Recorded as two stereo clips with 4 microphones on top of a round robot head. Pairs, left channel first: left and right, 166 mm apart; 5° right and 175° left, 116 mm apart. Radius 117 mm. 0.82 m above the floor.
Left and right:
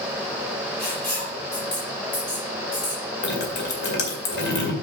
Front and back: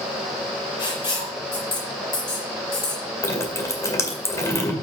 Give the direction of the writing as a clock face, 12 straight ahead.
11 o'clock.